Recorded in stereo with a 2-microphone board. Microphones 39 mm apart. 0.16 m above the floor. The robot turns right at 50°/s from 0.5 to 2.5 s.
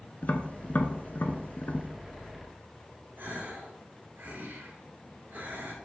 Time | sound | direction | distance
0.2 | tapping | 40° left (ahead or behind) | 0.8 m
3.2 | a gasp | 55° right (ahead or behind) | 3.5 m